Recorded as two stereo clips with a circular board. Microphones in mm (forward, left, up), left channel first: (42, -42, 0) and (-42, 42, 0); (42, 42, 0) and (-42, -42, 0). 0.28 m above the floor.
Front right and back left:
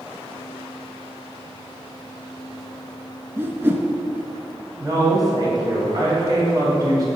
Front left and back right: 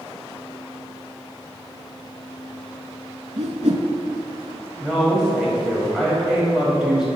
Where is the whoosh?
155° right, 0.6 m.